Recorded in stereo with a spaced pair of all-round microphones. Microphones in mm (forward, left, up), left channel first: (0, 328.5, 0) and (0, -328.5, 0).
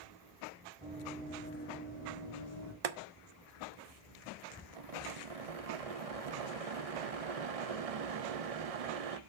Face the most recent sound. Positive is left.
turn(degrees=-60)  # may be behind; listen again after turning